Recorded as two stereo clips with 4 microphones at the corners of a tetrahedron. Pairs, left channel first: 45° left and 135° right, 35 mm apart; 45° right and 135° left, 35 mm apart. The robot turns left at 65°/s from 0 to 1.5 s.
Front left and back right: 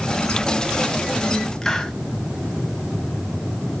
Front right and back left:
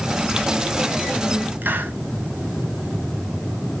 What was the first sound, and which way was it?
A hiss, 120° left.